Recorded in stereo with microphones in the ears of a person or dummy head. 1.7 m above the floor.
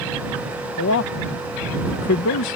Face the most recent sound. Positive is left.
turn(degrees=65)  # may be behind; listen again after turning